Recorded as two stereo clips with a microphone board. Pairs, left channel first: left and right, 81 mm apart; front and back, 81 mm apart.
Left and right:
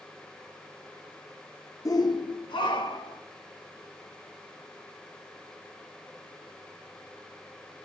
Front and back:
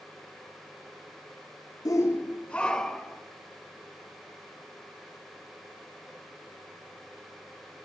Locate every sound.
1.9 s a shout: 45° left, 0.7 m; by 3.2 s 85° left, 2 m